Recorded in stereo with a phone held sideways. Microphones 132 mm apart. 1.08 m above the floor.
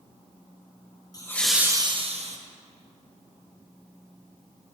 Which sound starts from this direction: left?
Laughter, at 1.1 s.